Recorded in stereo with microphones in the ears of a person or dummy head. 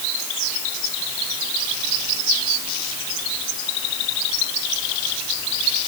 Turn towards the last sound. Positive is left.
No sound to turn to.